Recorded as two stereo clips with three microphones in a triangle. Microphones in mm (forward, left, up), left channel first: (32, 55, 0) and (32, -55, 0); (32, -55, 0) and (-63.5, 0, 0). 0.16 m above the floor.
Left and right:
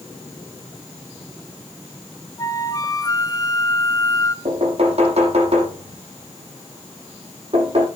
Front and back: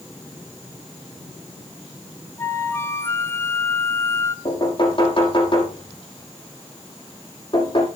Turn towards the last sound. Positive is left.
turn(degrees=-70)